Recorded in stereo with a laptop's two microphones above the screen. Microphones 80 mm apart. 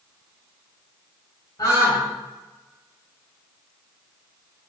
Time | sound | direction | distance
1.6 | a scream | 60° left (ahead or behind) | 3.5 m